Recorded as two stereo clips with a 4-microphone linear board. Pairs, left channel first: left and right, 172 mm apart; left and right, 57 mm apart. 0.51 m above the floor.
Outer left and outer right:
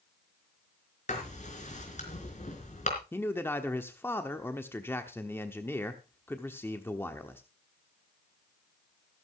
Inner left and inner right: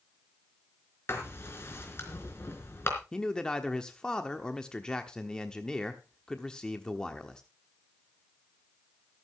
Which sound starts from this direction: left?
Writing, at 1.1 s.